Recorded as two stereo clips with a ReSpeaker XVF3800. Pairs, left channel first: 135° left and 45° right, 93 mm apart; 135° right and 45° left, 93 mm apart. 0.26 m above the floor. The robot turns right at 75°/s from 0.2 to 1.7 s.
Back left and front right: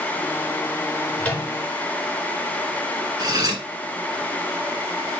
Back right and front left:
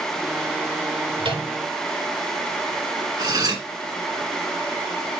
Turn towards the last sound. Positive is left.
turn(degrees=0)